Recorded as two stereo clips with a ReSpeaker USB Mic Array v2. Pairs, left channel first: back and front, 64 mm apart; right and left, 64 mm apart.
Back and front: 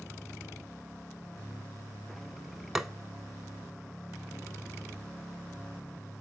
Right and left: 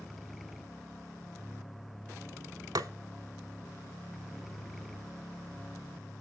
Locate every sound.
2.8 s tapping: 85° left, 0.6 m